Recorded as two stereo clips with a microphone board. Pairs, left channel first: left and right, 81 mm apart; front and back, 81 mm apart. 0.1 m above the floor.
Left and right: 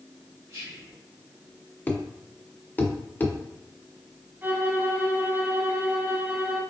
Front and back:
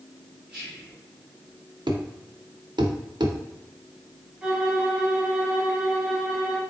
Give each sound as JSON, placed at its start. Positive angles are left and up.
{"t": 0.5, "sound": "whispering", "azimuth_deg": -110, "distance_m": 1.9}
{"t": 1.9, "sound": "a thud", "azimuth_deg": 155, "distance_m": 1.0}
{"t": 4.4, "sound": "a violin", "azimuth_deg": -115, "distance_m": 0.9}